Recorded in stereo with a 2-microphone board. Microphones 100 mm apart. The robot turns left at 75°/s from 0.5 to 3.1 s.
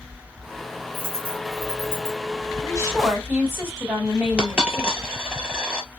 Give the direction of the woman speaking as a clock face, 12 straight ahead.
4 o'clock.